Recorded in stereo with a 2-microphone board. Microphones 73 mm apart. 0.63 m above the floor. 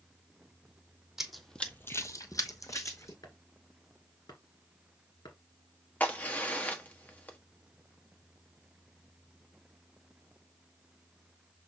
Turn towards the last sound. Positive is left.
turn(degrees=20)  # may be behind; listen again after turning